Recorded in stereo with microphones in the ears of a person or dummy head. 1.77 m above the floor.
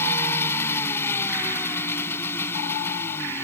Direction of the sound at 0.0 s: 20° left (ahead or behind).